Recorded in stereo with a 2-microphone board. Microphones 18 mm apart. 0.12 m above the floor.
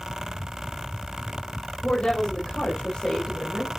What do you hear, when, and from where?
1.8 s a woman speaking: 60° left (ahead or behind), 4.5 m; by 3.8 s 55° left (ahead or behind), 3 m